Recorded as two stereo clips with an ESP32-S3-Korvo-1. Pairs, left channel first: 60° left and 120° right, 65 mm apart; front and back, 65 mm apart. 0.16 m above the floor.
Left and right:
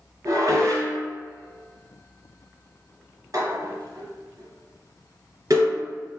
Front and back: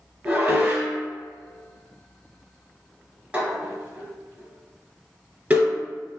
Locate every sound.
0.2 s dishes clattering: 115° right, 1.6 m